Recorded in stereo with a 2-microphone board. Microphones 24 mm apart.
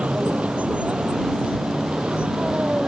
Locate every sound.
0.0 s a vehicle: 75° right (ahead or behind); by 2.9 s 55° right (ahead or behind)